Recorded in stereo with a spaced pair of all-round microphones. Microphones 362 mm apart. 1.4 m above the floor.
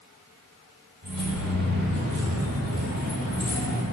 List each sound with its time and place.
1.0 s keys jangling: 30° right (ahead or behind), 2.5 m